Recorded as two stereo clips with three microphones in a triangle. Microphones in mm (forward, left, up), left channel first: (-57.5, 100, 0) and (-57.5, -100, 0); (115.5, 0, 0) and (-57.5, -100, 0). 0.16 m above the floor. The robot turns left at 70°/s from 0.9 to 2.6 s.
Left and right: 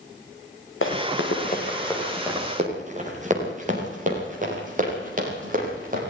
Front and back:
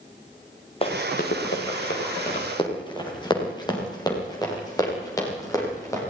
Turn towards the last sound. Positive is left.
turn(degrees=-45)